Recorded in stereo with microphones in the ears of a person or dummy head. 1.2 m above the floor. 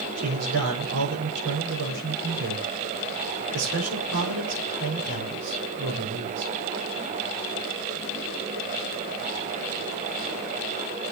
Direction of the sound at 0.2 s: 85° right.